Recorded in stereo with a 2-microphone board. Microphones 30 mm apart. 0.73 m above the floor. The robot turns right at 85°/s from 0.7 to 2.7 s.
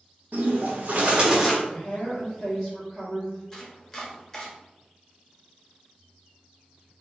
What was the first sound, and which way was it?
A bird, 70° right.